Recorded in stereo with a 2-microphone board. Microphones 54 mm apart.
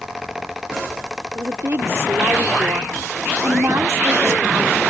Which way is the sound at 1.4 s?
55° right (ahead or behind).